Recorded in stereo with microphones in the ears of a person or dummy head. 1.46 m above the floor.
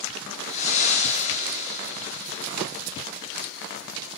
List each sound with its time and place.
0.5 s breathing: 45° left (ahead or behind), 4.5 m